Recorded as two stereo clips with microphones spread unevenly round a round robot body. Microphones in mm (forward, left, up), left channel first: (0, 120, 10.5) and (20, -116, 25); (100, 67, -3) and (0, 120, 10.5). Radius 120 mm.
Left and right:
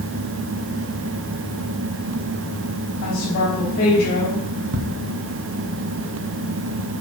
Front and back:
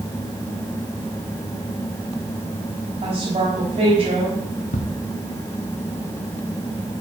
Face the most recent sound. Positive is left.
turn(degrees=-35)